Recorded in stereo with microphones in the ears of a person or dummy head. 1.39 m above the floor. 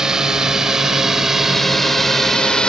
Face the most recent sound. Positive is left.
turn(degrees=0)  # may be behind; listen again after turning